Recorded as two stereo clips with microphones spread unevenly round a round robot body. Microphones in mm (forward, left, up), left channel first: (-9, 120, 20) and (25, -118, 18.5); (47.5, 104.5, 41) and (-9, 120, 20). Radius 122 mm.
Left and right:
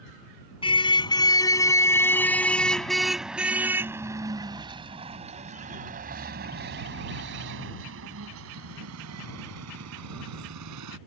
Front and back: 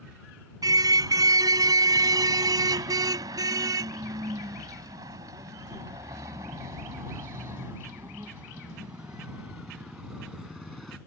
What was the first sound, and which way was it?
A car horn, 170° left.